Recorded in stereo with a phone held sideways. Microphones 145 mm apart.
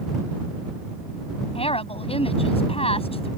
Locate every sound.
1.6 s a woman speaking: 45° left (ahead or behind)